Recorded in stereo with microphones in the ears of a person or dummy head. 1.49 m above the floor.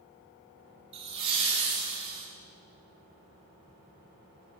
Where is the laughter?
30° right (ahead or behind), 0.9 m.